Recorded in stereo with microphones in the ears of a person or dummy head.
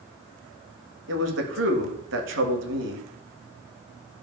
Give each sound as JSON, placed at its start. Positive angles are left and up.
{"t": 1.1, "sound": "a man speaking", "side_deg": -65, "distance_m": 1.8}